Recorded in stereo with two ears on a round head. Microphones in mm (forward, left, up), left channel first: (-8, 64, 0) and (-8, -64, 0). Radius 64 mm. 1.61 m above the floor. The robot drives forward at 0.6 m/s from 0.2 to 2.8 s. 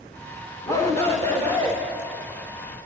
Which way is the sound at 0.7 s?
20° left (ahead or behind).